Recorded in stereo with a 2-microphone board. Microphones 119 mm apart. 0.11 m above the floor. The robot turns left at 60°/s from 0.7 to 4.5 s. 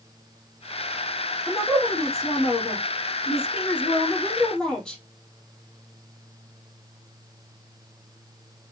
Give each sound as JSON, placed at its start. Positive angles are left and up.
{"t": 1.5, "sound": "a woman speaking", "azimuth_deg": -170, "distance_m": 3.0}